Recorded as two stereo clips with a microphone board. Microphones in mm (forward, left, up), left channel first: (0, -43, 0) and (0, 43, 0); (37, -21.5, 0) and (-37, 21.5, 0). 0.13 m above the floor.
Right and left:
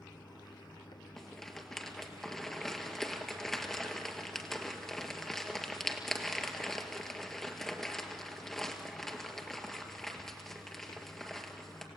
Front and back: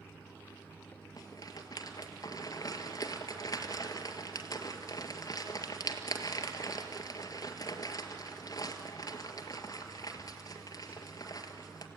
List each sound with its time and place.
0.0 s running water: 95° right, 1.6 m
1.2 s a rattle: 5° right, 1.6 m